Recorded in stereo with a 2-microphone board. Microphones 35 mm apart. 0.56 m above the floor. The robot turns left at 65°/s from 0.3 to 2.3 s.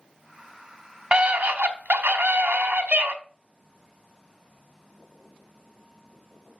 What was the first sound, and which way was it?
A scream, 40° right.